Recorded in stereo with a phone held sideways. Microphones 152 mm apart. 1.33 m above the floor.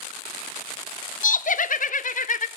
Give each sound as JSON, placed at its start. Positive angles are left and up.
{"t": 1.2, "sound": "laughter", "side_deg": 60, "distance_m": 0.7}